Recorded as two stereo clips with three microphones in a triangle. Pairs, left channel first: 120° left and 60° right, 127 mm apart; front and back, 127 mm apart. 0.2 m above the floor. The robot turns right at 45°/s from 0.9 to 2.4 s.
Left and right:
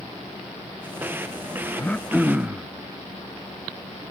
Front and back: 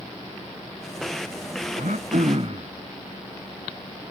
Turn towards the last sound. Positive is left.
turn(degrees=-140)